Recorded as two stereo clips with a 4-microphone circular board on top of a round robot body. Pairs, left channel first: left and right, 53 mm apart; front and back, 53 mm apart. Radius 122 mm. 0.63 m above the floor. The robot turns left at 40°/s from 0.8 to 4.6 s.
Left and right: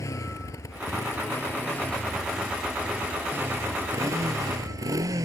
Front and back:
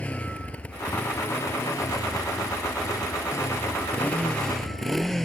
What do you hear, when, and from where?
0.0 s a motorcycle: 65° left; by 5.3 s 85° right